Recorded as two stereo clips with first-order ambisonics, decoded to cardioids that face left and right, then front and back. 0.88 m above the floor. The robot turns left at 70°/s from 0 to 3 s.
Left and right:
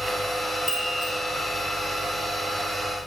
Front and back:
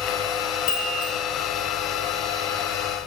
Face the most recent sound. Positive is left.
turn(degrees=-165)